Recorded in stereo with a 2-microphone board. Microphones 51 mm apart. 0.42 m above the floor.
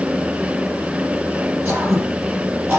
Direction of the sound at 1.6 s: 40° right (ahead or behind).